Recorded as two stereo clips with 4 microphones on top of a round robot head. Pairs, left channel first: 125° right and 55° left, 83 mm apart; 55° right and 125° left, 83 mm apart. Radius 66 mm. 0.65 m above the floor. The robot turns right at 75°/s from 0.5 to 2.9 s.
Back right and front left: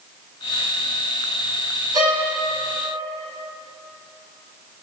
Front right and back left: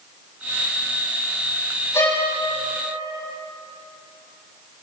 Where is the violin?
5° left, 5.5 m; by 2.3 s 30° left, 5.5 m.